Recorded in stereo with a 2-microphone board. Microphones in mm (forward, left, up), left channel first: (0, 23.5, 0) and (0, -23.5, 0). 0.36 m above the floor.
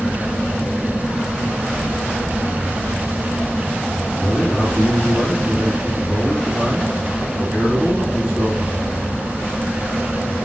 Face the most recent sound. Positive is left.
turn(degrees=-15)  # may be behind; listen again after turning